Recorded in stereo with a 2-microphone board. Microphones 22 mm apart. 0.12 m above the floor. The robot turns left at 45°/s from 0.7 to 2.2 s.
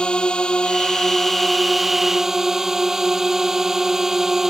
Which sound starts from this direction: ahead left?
A drone, at 0.0 s.